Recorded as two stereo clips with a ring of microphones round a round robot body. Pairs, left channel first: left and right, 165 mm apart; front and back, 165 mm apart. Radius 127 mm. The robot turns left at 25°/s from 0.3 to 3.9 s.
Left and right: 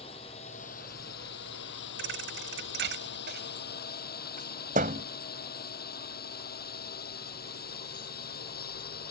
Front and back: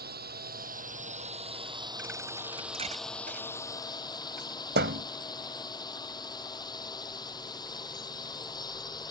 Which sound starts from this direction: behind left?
A drone, at 0.0 s.